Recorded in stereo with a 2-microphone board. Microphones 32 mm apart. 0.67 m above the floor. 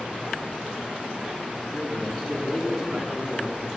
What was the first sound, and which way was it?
A man speaking, 5° left (ahead or behind).